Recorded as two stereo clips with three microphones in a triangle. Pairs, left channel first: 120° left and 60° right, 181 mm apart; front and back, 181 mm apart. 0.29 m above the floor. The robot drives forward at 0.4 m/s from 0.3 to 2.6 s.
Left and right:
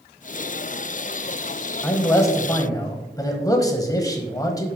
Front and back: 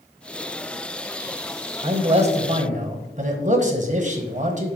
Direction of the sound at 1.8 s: Straight behind.